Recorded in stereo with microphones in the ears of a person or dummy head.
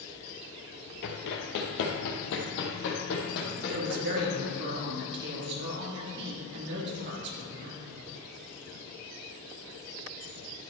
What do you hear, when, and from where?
1.0 s running footsteps: 50° left (ahead or behind), 1.8 m; by 4.5 s 55° left (ahead or behind), 4 m
3.7 s a woman speaking: 60° right (ahead or behind), 2.5 m